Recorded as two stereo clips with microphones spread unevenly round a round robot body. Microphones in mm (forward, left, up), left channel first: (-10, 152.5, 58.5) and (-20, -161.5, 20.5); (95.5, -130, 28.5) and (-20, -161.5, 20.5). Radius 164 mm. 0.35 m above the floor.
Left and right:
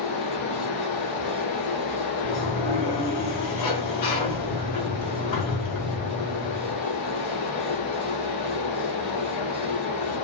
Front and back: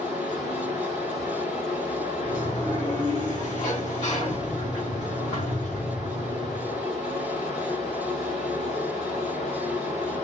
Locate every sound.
0.0 s running water: 110° left, 1.2 m
2.2 s a sliding door: 85° left, 1.9 m